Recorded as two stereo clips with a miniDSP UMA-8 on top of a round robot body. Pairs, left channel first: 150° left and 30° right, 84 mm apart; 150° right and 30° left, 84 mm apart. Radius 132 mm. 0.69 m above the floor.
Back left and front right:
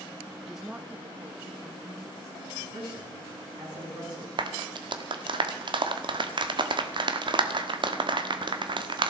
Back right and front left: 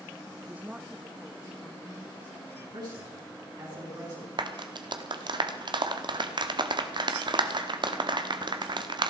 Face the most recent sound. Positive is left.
turn(degrees=0)